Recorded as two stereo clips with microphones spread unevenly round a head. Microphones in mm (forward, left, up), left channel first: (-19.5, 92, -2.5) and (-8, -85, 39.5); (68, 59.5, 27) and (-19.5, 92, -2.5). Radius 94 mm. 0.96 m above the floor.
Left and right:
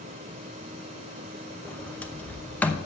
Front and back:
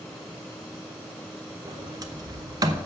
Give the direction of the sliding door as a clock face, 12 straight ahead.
6 o'clock.